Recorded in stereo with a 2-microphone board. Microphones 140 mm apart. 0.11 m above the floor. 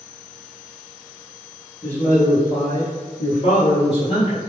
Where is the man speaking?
15° left (ahead or behind), 1.8 m; by 4.4 s 35° left (ahead or behind), 2 m.